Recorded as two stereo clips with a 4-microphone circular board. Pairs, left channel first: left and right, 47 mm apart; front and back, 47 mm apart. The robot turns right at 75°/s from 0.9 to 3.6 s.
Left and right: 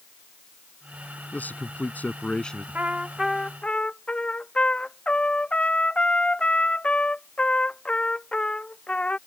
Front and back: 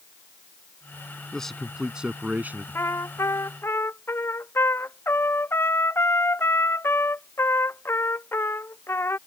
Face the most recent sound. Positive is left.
turn(degrees=25)